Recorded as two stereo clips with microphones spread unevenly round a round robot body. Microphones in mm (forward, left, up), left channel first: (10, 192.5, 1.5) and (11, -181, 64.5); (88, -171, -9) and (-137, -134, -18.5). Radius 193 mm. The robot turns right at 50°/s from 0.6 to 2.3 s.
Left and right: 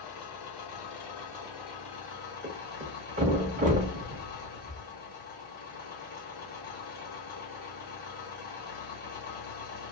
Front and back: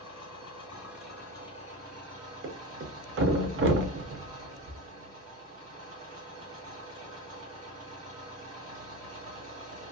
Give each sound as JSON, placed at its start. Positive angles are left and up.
{"t": 0.0, "sound": "an engine running", "azimuth_deg": 70, "distance_m": 1.4}
{"t": 2.4, "sound": "a thud", "azimuth_deg": -165, "distance_m": 0.6}